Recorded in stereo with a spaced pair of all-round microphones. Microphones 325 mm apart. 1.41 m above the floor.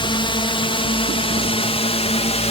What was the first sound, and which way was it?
A drone, 15° left (ahead or behind).